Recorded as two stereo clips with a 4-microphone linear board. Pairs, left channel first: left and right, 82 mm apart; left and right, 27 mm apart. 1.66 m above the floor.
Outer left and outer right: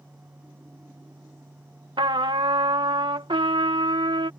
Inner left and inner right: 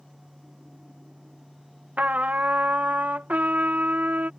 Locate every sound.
2.0 s a trumpet: 80° right